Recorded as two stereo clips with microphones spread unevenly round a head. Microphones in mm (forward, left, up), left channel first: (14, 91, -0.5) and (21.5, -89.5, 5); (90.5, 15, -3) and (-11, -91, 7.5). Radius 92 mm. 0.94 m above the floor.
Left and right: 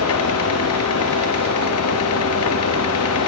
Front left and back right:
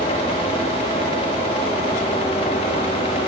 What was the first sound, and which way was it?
A fan, 110° left.